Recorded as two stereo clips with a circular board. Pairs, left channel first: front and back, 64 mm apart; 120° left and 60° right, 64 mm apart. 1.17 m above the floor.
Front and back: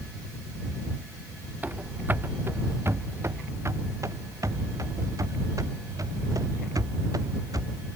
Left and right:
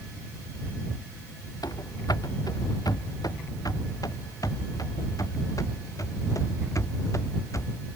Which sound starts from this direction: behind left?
Running footsteps, at 1.6 s.